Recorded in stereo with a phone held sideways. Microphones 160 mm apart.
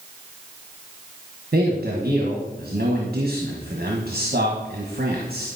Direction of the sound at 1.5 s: 75° right (ahead or behind).